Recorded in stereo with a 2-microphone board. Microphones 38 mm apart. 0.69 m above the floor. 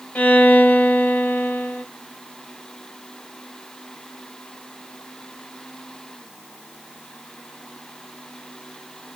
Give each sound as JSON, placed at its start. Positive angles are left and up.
{"t": 0.1, "sound": "a violin", "side_deg": 50, "distance_m": 0.8}